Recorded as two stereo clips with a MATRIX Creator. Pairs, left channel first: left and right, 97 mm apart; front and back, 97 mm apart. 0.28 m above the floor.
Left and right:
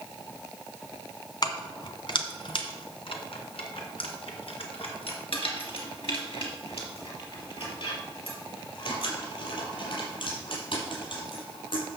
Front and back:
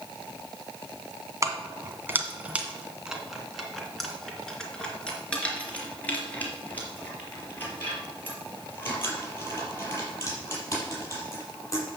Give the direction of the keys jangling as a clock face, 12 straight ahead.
8 o'clock.